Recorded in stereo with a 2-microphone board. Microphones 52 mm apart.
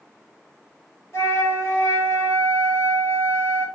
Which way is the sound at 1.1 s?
75° left (ahead or behind).